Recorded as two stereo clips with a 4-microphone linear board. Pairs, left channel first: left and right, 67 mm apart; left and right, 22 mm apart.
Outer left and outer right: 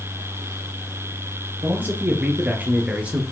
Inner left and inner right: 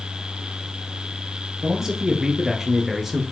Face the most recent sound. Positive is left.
turn(degrees=-20)  # may be behind; listen again after turning